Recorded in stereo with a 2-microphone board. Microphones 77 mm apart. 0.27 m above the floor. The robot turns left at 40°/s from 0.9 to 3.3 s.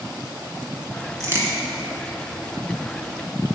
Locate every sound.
1.2 s a crack: 40° right (ahead or behind), 1.8 m; by 1.5 s 25° right (ahead or behind), 1.8 m